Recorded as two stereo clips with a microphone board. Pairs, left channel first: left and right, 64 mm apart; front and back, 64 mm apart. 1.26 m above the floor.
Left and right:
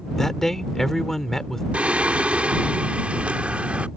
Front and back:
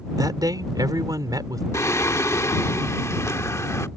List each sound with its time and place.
0.2 s a man speaking: 175° left
1.7 s singing: 25° right